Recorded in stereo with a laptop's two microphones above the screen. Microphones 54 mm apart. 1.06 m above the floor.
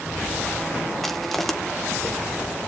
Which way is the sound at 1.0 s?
5° left (ahead or behind).